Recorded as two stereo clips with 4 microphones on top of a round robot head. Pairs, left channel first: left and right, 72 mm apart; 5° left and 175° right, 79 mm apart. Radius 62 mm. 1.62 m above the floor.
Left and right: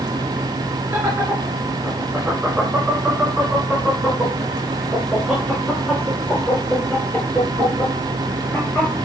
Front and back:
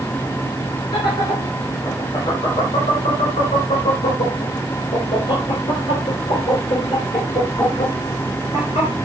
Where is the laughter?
30° right, 5 m; by 8.9 s 20° left, 6.5 m.